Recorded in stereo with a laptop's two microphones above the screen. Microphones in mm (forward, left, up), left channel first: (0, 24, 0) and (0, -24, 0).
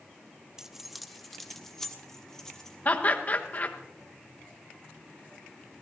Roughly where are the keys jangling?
Centre.